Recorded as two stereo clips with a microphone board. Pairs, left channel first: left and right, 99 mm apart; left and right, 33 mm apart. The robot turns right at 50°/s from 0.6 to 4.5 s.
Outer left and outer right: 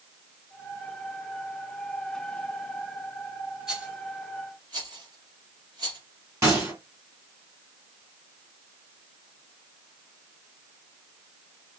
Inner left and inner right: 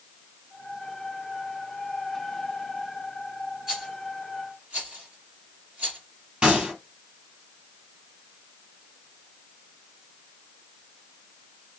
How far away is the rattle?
About 3 m.